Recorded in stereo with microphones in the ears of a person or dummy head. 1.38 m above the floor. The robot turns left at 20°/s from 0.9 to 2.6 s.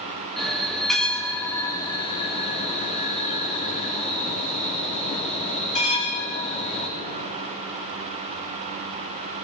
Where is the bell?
175° left, 1.5 m; by 6.9 s 140° left, 1.5 m.